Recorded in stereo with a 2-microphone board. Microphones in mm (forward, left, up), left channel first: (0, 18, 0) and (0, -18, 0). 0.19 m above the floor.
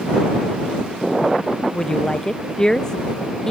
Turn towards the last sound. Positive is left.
turn(degrees=15)  # may be behind; listen again after turning